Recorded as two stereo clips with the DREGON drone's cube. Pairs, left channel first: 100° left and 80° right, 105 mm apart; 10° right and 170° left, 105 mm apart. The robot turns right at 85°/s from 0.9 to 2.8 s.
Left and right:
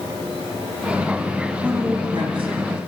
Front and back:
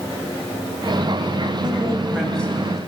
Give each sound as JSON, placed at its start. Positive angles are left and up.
{"t": 1.6, "sound": "a woman speaking", "azimuth_deg": -155, "distance_m": 1.9}